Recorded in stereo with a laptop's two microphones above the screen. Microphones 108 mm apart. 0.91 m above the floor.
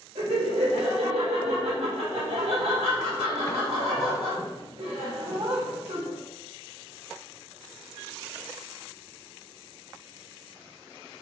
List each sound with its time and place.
0.1 s laughter: 75° right (ahead or behind), 1.7 m